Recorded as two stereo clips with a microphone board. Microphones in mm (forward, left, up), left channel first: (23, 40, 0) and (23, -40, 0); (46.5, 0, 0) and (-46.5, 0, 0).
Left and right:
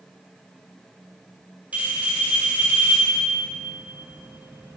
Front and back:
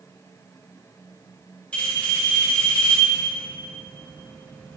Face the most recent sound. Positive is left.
turn(degrees=-55)